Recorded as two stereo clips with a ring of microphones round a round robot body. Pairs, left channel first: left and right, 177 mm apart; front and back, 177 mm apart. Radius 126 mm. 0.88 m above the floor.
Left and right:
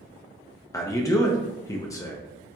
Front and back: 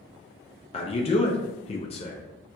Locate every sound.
0.7 s a man speaking: 30° left, 0.6 m